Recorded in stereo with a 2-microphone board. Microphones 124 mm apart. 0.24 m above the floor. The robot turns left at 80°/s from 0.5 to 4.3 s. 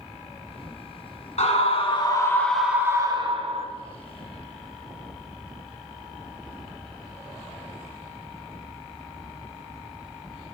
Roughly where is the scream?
Left.